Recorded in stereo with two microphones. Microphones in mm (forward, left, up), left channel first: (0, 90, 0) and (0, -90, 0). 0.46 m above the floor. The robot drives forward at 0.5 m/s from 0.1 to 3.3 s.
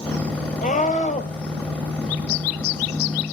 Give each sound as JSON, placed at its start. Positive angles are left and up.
{"t": 0.6, "sound": "a scream", "side_deg": 50, "distance_m": 3.0}